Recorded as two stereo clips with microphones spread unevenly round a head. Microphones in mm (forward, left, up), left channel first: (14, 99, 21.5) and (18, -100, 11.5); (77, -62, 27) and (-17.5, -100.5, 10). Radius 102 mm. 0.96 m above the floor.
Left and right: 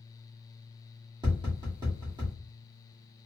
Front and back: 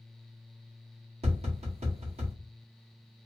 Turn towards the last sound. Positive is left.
turn(degrees=-160)